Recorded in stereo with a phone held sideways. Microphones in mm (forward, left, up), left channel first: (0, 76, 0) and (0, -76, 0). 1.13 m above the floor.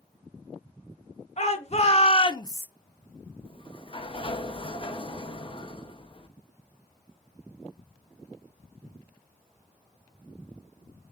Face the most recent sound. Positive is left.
turn(degrees=35)  # may be behind; listen again after turning